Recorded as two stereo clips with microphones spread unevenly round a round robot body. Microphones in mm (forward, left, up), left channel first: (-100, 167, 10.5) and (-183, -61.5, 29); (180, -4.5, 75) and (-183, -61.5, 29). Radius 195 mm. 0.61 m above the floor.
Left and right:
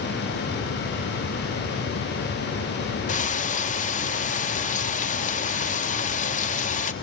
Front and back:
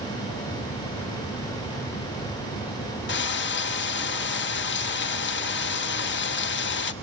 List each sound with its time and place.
3.1 s frying: 60° left, 1.2 m